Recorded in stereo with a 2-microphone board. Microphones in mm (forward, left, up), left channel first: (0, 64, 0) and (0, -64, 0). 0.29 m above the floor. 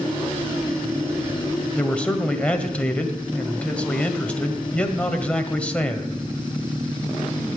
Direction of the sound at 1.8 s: 10° left (ahead or behind).